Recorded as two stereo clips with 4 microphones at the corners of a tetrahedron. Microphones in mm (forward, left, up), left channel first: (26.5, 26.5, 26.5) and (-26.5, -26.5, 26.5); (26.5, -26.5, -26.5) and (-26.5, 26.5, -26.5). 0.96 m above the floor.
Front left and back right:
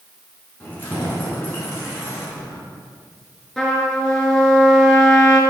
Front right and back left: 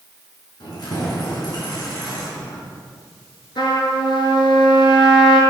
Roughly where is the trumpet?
Ahead right.